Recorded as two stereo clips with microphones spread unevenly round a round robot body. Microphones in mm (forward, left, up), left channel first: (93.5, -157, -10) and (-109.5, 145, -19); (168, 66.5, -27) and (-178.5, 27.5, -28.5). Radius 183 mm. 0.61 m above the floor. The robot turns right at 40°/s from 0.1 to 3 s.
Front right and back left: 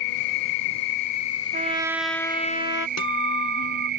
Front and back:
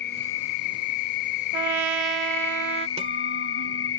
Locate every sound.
0.0 s an insect: 55° right; by 4.0 s 60° left
1.5 s a trumpet: 165° right; by 2.9 s 115° right
3.0 s a guitar: 100° right